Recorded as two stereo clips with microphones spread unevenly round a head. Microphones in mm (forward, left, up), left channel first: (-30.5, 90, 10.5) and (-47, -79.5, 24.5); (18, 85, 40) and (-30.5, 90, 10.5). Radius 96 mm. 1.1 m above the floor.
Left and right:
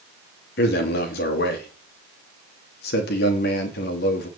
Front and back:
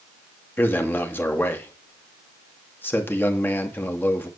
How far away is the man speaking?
About 2.5 m.